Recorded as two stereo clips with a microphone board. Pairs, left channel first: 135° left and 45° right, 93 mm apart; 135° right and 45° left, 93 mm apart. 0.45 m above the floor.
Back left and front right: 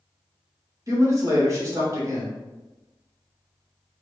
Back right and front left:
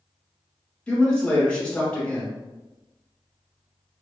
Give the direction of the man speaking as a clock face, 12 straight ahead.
2 o'clock.